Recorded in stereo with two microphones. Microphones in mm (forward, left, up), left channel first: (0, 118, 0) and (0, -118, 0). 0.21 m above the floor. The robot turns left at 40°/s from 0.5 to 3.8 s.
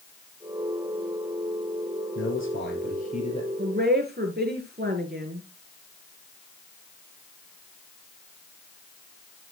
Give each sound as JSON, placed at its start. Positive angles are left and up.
{"t": 2.1, "sound": "a man speaking", "azimuth_deg": 70, "distance_m": 4.0}
{"t": 3.6, "sound": "a woman speaking", "side_deg": -35, "distance_m": 3.0}